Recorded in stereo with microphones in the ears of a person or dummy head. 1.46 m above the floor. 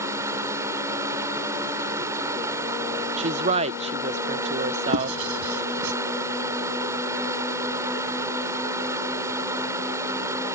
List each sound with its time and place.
0.0 s running water: 15° right (ahead or behind)
3.2 s a woman speaking: 40° right (ahead or behind)
4.9 s writing: 85° right